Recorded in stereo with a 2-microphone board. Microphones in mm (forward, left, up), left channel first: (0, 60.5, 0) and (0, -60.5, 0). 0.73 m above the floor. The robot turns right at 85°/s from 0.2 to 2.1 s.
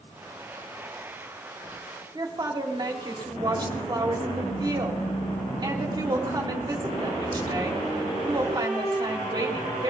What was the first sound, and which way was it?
A woman speaking, 35° right (ahead or behind).